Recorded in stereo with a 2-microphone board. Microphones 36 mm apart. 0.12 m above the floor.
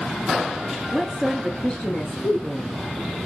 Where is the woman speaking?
5° left (ahead or behind), 1.2 m; by 2.8 s 40° left (ahead or behind), 1.9 m.